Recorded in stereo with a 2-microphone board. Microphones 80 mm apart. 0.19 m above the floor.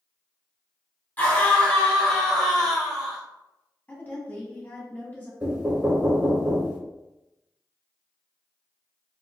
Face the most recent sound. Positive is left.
turn(degrees=-25)  # may be behind; listen again after turning